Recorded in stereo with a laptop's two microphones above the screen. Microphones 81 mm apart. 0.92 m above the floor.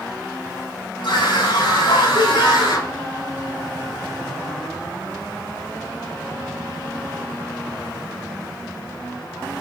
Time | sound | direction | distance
1.0 | a scream | 75° left (ahead or behind) | 7.5 m